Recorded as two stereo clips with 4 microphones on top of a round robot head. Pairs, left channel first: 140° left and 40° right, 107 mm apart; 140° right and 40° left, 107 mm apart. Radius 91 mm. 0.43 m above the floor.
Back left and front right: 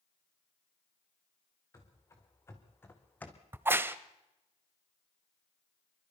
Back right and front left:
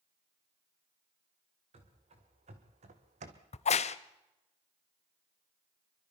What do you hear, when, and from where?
1.7 s running footsteps: 75° left, 3.5 m; by 3.4 s 60° left, 1.6 m
3.5 s a crack: 115° right, 0.7 m